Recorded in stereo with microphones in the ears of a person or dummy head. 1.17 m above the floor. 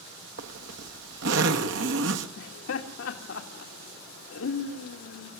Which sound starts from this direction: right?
A zipper, at 0.4 s.